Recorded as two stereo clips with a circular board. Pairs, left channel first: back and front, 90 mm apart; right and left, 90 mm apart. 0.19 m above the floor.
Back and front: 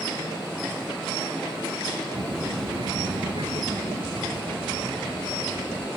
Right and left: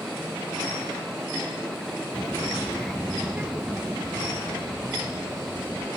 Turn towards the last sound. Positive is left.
turn(degrees=40)